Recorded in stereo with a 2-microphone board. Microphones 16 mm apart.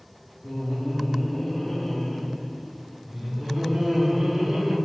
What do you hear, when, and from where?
0.4 s laughter: 30° left (ahead or behind), 1.4 m; by 4.8 s 45° right (ahead or behind), 2.5 m